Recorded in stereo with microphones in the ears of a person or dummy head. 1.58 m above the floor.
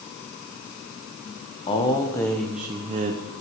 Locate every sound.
1.7 s a man speaking: 20° left (ahead or behind), 1.1 m; by 3.4 s 55° right (ahead or behind), 0.7 m